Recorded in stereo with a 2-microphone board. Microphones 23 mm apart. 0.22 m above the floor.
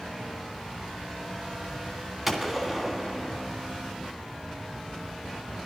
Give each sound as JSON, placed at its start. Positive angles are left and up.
{"t": 2.3, "sound": "a gunshot", "side_deg": -15, "distance_m": 2.0}